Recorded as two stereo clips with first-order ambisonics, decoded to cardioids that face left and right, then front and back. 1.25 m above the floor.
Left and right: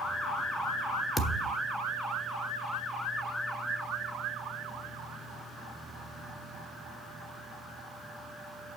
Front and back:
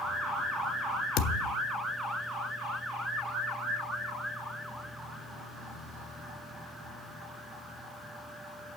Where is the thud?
5° left, 1.2 m.